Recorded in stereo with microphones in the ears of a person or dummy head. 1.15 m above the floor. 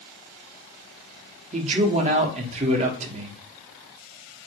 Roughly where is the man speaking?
Right.